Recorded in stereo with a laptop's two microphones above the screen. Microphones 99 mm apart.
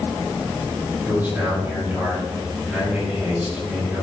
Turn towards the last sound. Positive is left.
turn(degrees=-15)  # may be behind; listen again after turning